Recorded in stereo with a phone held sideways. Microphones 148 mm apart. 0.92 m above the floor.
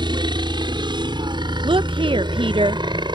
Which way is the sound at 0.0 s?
30° right (ahead or behind).